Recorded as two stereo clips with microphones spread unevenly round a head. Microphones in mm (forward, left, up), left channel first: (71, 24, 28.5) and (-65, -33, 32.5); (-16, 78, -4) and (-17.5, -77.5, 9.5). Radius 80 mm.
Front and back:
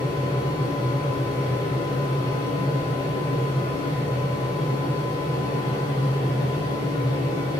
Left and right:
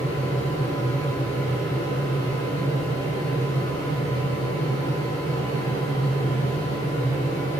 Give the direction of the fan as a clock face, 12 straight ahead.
10 o'clock.